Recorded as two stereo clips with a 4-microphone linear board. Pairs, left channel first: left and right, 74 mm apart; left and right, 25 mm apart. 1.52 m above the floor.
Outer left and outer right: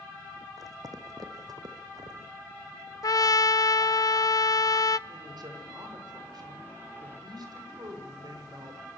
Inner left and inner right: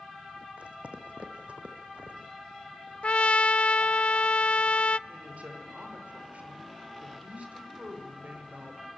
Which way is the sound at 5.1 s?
80° right.